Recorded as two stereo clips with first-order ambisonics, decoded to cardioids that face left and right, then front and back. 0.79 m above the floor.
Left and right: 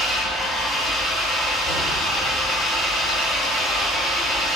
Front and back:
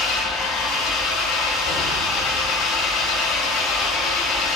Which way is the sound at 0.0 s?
25° left.